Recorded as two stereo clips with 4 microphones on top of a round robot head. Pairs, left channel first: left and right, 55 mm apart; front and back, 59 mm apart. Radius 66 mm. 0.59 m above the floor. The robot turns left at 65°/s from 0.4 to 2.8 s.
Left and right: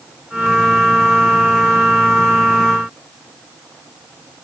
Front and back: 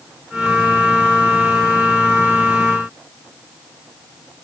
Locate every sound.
Only background noise.